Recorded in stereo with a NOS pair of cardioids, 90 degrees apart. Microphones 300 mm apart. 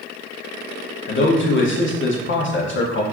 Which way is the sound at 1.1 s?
40° left.